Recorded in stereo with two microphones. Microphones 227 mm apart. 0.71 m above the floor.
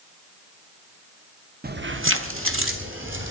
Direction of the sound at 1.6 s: 45° right (ahead or behind).